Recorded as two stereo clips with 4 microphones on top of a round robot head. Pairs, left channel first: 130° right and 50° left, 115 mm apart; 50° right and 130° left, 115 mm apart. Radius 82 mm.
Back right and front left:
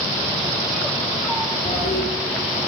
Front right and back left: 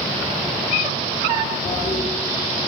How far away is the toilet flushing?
About 7 m.